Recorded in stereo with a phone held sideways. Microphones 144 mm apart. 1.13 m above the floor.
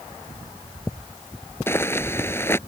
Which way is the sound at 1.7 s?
15° left (ahead or behind).